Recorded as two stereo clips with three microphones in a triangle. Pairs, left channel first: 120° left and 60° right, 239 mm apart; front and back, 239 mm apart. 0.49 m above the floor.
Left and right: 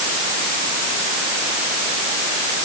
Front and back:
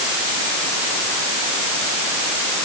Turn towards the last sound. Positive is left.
No sound to turn to.